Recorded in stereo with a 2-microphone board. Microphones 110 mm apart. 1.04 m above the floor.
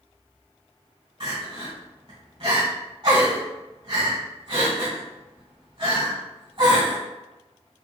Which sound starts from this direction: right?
Crying, at 1.2 s.